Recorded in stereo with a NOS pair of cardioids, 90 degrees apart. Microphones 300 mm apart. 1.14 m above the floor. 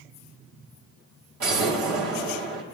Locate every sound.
1.4 s an explosion: 60° right, 3.5 m